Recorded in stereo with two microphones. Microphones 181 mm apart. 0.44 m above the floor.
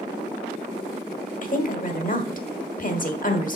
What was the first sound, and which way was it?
A woman speaking, 50° left (ahead or behind).